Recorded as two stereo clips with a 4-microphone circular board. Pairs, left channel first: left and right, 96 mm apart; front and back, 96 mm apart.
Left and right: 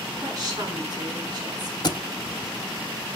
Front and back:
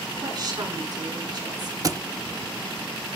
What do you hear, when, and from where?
0.2 s a woman speaking: 140° right, 7 m
1.8 s a thud: 130° left, 0.7 m